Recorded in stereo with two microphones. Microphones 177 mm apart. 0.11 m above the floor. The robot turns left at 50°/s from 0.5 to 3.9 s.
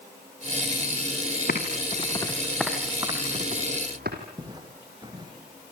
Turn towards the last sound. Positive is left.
turn(degrees=-25)  # may be behind; listen again after turning